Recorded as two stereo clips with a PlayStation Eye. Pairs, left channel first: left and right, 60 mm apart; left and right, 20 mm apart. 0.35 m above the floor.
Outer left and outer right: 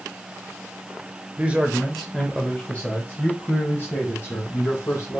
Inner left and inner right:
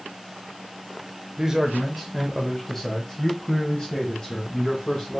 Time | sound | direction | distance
1.4 | a man speaking | 30° right (ahead or behind) | 0.9 m